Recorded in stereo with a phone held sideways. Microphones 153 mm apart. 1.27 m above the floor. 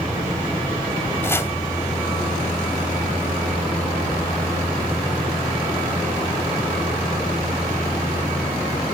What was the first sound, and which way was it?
Chopping, 15° left (ahead or behind).